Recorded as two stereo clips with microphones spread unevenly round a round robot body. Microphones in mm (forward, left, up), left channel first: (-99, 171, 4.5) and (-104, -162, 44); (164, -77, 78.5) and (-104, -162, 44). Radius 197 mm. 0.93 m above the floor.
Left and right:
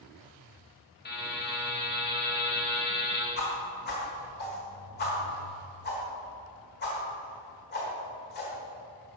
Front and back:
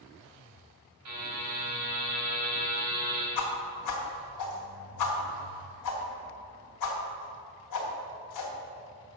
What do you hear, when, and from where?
1.1 s a buzzer: 150° left, 3 m
3.4 s a whoosh: 20° left, 1.1 m